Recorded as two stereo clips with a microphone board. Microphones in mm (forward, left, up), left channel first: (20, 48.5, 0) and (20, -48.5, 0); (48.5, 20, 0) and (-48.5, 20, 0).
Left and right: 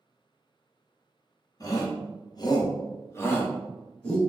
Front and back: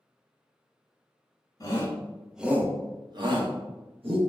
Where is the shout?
50° left, 0.7 m; by 4.2 s 165° left, 1.3 m.